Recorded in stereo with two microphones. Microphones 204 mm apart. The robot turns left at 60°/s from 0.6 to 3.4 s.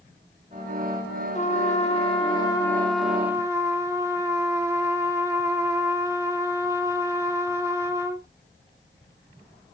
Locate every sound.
1.4 s a trumpet: 100° left, 2.0 m; by 8.3 s 25° right, 2.0 m